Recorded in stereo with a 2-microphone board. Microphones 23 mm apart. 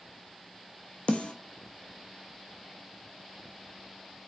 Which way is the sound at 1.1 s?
75° left (ahead or behind).